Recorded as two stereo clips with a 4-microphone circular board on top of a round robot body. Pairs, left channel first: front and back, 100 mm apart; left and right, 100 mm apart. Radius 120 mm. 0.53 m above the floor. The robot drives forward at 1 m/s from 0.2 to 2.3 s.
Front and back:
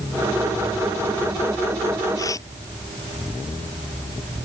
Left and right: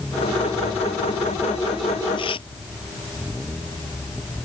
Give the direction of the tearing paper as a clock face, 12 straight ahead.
10 o'clock.